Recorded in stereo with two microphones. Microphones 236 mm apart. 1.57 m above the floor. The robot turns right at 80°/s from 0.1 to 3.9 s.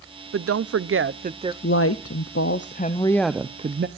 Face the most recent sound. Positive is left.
turn(degrees=-130)